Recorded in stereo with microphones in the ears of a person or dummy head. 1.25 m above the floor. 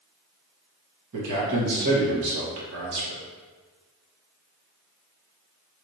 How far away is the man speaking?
About 1.1 m.